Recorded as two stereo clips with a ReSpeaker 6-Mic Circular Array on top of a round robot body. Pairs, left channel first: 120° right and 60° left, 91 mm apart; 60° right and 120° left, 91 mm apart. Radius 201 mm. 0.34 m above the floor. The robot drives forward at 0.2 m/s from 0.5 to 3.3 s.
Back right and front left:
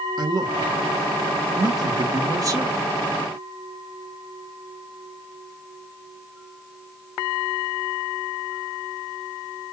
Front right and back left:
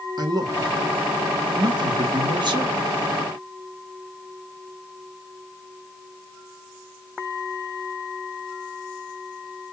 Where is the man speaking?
90° left, 1.9 m; by 2.9 s 105° left, 1.9 m.